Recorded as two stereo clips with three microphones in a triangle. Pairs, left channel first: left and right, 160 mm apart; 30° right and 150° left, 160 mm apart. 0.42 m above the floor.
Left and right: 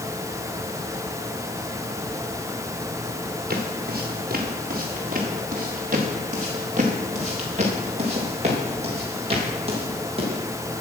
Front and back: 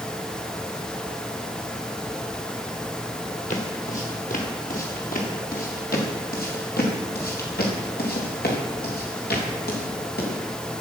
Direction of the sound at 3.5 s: 70° right.